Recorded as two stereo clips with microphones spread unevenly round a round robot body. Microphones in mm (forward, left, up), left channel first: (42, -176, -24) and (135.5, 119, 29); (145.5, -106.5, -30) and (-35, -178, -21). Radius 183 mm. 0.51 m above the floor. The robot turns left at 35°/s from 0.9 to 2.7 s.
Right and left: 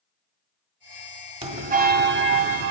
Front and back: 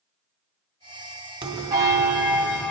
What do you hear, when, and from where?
1.4 s a bell: 145° left, 0.8 m; by 2.7 s 100° left, 0.8 m